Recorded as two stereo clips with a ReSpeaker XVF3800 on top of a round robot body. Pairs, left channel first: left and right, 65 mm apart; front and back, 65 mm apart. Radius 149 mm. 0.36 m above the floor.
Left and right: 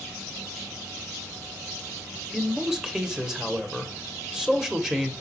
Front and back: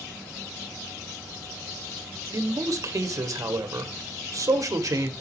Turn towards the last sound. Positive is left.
turn(degrees=-170)